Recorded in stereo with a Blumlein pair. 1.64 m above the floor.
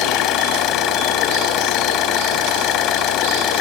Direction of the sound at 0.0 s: 35° left.